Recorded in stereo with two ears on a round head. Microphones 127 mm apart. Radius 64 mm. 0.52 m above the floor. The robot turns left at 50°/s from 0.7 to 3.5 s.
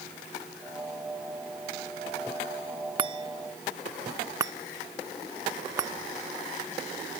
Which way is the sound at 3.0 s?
35° right (ahead or behind).